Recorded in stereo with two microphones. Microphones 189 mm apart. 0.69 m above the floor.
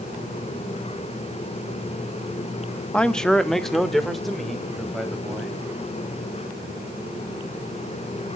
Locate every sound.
2.9 s a man speaking: 5° left (ahead or behind), 0.5 m; by 5.6 s centre (ahead or behind), 4 m